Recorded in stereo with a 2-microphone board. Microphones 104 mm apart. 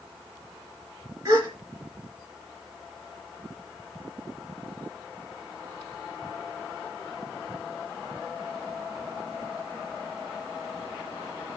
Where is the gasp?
35° right (ahead or behind), 3 m.